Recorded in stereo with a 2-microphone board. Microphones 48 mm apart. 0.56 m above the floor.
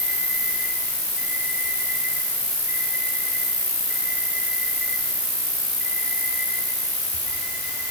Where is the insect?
50° right (ahead or behind), 5.5 m.